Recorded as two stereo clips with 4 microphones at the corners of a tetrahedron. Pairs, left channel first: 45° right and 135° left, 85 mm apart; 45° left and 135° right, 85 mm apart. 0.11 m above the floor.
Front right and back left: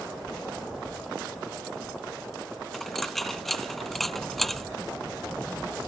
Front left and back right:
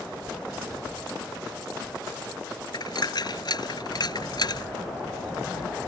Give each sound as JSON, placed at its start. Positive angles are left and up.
{"t": 2.7, "sound": "a dropped coin", "azimuth_deg": 40}